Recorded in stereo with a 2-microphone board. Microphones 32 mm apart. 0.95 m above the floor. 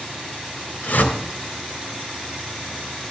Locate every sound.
0.8 s a whoosh: 80° left, 3 m